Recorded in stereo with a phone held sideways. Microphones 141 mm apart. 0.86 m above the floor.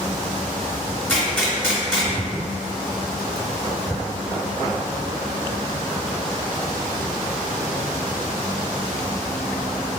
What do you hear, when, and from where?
1.1 s a gunshot: 10° left (ahead or behind), 1.4 m